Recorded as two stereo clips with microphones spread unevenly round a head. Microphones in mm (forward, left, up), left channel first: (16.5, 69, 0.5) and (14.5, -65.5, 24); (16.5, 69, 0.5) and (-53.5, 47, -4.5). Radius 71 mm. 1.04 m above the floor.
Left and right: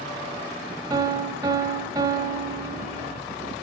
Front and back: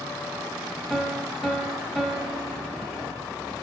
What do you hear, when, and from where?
0.9 s a piano: 65° right, 1.0 m